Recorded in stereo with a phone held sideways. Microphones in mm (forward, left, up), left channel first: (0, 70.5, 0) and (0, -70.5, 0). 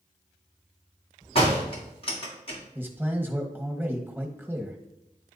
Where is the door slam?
40° left (ahead or behind), 1.6 m.